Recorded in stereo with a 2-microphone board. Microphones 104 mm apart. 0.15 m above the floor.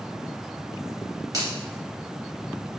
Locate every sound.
1.3 s a finger snap: 40° right (ahead or behind), 1.5 m